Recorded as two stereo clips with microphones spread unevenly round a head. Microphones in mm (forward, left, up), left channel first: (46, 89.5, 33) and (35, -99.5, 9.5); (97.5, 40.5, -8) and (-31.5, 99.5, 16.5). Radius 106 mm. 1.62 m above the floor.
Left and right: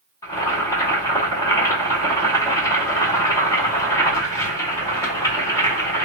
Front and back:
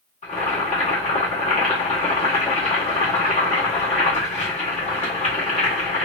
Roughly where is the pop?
I don't hear a pop.